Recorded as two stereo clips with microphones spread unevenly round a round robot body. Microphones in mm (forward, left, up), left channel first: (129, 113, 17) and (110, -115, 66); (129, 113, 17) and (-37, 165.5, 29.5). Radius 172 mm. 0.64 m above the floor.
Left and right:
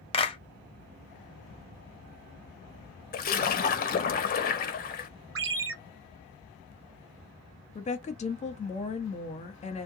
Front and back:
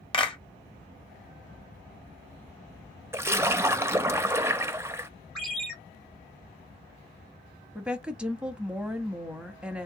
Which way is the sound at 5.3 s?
105° right.